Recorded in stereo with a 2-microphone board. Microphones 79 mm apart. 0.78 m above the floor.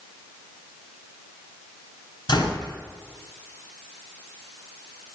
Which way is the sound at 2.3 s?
65° left (ahead or behind).